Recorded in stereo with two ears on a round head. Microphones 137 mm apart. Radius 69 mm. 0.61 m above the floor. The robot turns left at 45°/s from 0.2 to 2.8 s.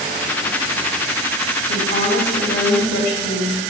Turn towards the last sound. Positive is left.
turn(degrees=85)